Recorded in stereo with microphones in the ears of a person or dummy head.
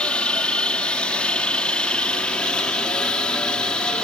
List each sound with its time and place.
0.0 s a helicopter: 5° left (ahead or behind); by 4.0 s centre (ahead or behind)